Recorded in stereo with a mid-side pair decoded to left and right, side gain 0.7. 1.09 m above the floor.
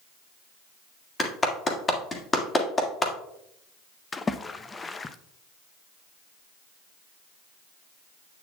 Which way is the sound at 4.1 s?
20° left.